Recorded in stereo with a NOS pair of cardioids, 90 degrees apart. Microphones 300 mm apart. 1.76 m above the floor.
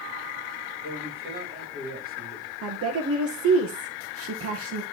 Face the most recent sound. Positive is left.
turn(degrees=-50)